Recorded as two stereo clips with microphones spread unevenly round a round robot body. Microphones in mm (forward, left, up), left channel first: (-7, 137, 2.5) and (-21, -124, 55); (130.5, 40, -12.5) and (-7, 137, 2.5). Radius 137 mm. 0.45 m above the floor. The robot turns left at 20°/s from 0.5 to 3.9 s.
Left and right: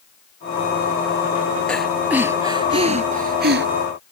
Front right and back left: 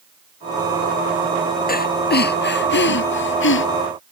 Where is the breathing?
Straight ahead; by 3.7 s 40° right.